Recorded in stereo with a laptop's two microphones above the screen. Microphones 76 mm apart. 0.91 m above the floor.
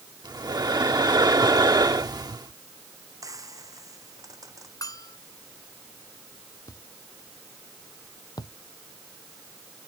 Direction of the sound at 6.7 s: 55° left (ahead or behind).